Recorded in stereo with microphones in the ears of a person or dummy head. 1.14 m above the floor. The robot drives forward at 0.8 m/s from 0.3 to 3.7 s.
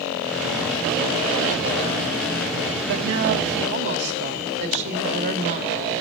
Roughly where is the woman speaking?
Right.